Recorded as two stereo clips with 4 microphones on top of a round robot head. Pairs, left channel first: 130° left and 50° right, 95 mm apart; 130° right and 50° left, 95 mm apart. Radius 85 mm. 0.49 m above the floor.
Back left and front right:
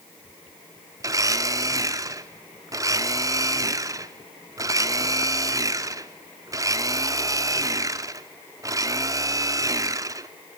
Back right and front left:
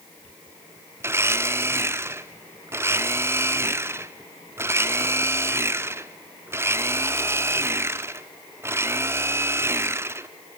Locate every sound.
1.0 s a blender: 5° right, 0.9 m